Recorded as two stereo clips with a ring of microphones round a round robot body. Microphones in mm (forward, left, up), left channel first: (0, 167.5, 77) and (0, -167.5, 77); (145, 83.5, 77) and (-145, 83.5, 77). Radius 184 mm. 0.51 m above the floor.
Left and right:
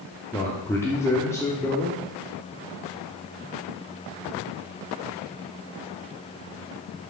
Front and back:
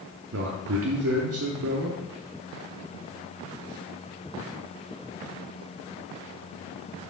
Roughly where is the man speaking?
Behind.